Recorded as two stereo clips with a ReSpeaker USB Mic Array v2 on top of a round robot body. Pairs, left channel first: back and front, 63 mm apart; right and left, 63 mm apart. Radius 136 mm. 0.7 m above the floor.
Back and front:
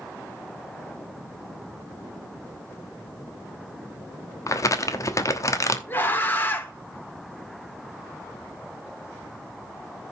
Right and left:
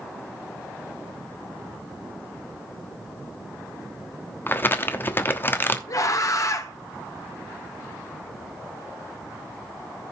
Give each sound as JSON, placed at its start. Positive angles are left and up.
{"t": 4.5, "sound": "crumpling", "azimuth_deg": -145, "distance_m": 1.2}
{"t": 5.9, "sound": "a scream", "azimuth_deg": -120, "distance_m": 2.5}